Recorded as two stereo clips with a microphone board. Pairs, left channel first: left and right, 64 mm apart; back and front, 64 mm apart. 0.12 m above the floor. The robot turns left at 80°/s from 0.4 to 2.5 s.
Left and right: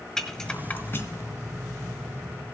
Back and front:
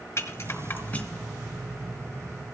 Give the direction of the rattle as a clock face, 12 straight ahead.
6 o'clock.